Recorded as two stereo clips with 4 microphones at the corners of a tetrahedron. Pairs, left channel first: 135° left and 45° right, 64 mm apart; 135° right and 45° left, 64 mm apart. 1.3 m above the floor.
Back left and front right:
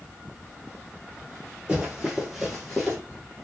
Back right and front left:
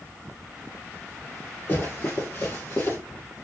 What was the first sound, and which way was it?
Running footsteps, 110° right.